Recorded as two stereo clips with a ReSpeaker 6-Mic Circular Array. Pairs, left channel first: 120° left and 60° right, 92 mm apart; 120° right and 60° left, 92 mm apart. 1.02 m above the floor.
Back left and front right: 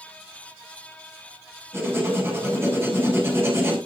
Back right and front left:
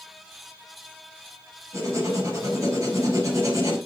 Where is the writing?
5° left, 4.5 m.